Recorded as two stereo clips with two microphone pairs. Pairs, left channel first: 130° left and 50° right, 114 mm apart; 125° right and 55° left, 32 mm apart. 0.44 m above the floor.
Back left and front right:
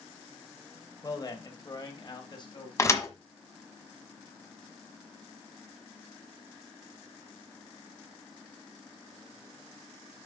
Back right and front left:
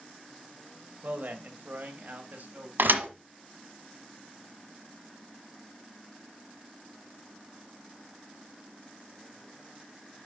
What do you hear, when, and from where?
1.0 s a man speaking: 80° left, 1.8 m; by 2.7 s 85° left, 2.5 m
2.8 s a thud: 65° left, 1.3 m